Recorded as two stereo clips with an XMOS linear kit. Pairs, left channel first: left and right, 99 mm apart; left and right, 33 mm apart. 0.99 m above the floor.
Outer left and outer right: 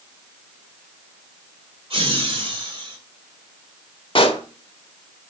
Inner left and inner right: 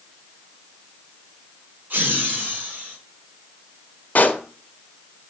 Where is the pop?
55° left (ahead or behind), 1.2 m.